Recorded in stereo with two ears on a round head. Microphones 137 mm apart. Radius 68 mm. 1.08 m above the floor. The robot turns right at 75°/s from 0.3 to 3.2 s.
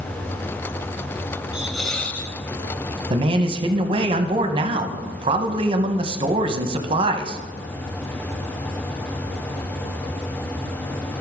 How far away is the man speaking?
About 0.9 m.